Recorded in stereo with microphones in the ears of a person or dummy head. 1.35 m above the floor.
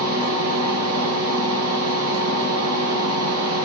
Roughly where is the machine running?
Right.